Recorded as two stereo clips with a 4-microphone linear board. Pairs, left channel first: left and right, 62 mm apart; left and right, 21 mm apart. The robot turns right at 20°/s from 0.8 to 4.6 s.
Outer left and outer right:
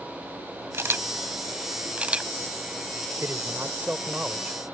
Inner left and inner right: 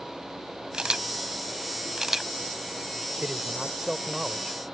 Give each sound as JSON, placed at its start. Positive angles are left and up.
{"t": 0.7, "sound": "a camera shutter", "side_deg": -45}
{"t": 3.2, "sound": "a man speaking", "side_deg": -45}